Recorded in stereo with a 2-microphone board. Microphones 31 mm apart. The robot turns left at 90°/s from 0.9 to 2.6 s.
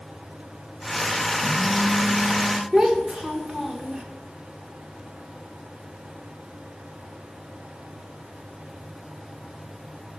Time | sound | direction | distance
1.4 | a phone buzzing | 10° right | 1.4 m
2.7 | a child speaking | 20° right (ahead or behind) | 1.2 m